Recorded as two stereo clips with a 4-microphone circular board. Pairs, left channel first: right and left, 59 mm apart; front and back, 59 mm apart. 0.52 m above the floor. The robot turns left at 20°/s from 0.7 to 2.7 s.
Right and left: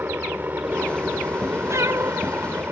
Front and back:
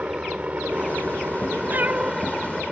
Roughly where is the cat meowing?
Behind left.